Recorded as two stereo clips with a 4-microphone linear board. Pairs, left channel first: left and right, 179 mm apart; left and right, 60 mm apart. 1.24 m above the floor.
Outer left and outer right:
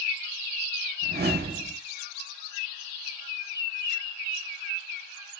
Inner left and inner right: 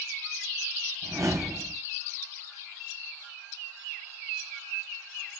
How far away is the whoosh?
About 0.7 m.